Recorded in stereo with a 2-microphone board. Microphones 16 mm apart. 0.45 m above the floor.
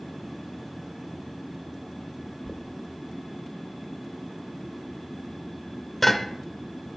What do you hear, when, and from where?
2.5 s knocking: 10° left (ahead or behind), 1.1 m